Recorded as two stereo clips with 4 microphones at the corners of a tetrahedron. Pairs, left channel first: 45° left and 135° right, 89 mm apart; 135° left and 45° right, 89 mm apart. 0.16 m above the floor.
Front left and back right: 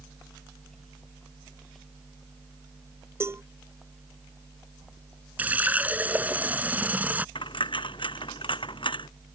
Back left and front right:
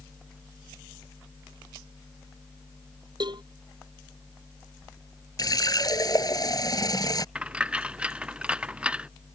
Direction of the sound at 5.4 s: 160° left.